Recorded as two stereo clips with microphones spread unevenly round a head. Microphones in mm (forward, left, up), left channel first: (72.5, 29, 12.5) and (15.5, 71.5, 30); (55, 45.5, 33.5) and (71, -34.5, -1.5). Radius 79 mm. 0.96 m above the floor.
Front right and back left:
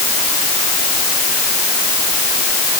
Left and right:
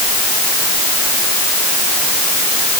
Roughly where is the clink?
No clink in this recording.